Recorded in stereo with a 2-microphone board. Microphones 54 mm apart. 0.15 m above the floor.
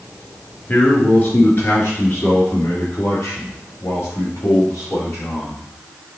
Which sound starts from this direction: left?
A man speaking, at 0.7 s.